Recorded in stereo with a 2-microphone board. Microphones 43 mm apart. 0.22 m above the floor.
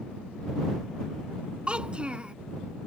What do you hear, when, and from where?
1.7 s a child speaking: 25° right (ahead or behind)